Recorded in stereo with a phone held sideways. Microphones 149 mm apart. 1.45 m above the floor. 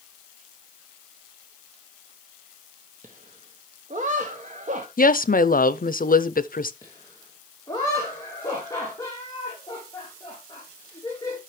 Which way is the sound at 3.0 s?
55° right (ahead or behind).